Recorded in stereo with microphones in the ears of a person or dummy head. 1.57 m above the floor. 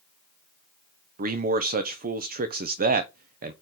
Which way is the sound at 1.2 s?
45° right (ahead or behind).